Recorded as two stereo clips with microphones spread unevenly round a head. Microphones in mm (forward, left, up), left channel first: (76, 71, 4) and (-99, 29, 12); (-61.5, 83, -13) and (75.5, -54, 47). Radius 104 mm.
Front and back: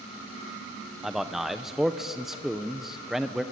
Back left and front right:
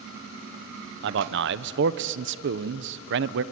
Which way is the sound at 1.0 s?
80° right.